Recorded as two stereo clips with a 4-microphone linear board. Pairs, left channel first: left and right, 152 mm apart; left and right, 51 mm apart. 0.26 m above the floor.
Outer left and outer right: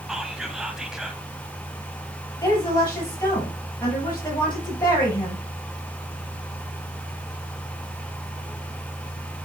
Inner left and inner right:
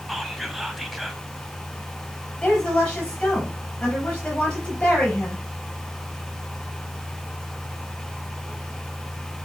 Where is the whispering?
5° right (ahead or behind), 1.3 m.